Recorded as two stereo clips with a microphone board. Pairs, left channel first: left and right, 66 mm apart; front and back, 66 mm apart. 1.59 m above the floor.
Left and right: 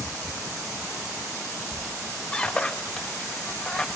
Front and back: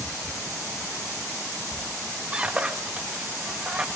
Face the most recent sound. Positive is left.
turn(degrees=135)